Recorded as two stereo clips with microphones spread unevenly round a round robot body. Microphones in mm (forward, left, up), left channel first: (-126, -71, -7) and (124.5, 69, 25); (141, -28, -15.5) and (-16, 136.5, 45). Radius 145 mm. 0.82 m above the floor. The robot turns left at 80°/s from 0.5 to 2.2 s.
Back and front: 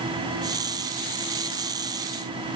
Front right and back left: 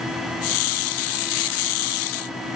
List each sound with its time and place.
Only background noise.